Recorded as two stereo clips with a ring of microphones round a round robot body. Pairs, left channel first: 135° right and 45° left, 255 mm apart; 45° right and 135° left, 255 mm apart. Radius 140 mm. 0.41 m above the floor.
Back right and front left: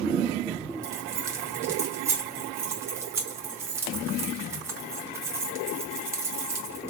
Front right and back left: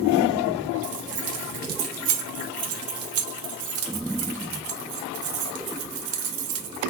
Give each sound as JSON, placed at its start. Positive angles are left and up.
{"t": 0.8, "sound": "keys jangling", "azimuth_deg": 125, "distance_m": 0.9}